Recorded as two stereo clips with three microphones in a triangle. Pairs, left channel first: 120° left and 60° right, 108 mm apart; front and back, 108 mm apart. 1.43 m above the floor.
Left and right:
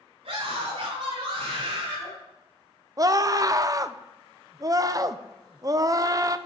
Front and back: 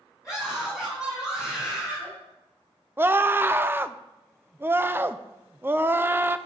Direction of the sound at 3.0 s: 110° right.